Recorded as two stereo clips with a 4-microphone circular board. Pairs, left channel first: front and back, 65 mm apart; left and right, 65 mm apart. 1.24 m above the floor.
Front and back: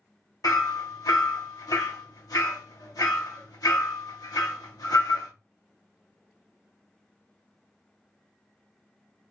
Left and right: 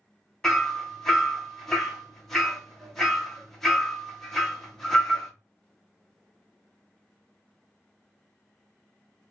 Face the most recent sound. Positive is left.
turn(degrees=10)